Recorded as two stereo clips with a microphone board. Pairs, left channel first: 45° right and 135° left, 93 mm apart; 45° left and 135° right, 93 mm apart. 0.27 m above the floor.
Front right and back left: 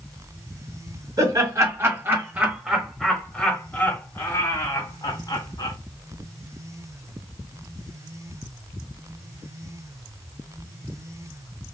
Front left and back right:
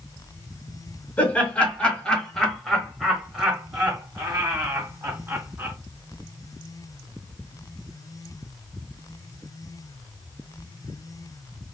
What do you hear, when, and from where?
1.2 s laughter: 110° left, 1.5 m; by 5.8 s 70° right, 1.9 m